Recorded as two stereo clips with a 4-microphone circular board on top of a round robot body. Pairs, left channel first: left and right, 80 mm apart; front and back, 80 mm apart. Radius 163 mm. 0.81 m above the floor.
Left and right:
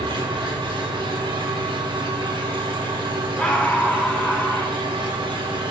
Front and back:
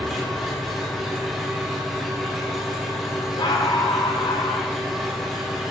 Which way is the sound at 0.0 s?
90° right.